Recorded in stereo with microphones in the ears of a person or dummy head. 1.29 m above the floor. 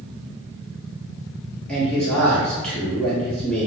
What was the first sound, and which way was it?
A man speaking, 5° left (ahead or behind).